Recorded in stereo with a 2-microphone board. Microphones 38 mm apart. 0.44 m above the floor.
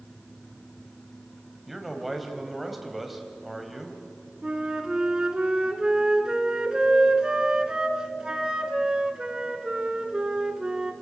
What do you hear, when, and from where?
1.7 s a man speaking: 5° right (ahead or behind), 3 m
4.4 s a flute: 25° right (ahead or behind), 1.6 m